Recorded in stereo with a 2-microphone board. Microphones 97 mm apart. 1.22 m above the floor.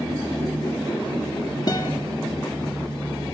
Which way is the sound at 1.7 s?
40° left (ahead or behind).